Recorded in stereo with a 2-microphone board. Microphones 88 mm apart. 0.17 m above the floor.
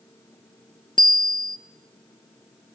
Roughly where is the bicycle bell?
Left.